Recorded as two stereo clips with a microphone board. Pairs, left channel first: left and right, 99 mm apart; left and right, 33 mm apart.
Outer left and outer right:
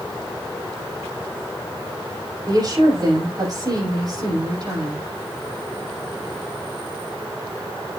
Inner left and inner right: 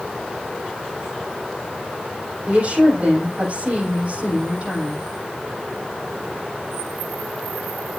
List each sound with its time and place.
2.5 s a woman speaking: 45° right (ahead or behind), 7.5 m